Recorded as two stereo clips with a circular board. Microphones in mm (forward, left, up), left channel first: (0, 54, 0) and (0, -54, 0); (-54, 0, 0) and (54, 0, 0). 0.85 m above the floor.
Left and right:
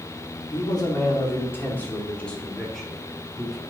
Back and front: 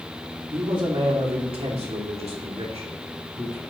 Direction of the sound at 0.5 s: 45° left.